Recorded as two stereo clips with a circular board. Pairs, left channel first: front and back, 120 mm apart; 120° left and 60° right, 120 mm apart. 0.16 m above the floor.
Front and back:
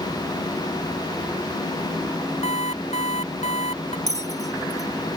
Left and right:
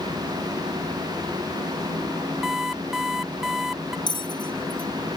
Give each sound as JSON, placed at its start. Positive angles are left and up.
{"t": 2.4, "sound": "an alarm clock", "azimuth_deg": 25}
{"t": 4.1, "sound": "a bell", "azimuth_deg": 170}